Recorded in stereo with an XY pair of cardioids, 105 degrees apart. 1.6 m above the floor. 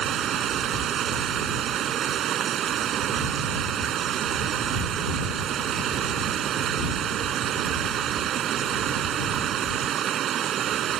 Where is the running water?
65° right.